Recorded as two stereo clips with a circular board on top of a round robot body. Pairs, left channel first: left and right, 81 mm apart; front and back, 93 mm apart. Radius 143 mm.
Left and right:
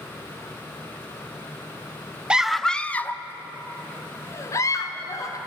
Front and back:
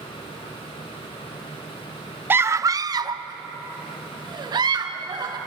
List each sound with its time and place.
2.3 s a scream: 150° right, 0.7 m; by 5.4 s 140° left, 2.5 m